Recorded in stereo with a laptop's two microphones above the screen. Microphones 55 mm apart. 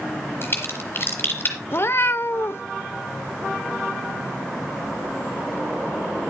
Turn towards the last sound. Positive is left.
turn(degrees=45)  # may be behind; listen again after turning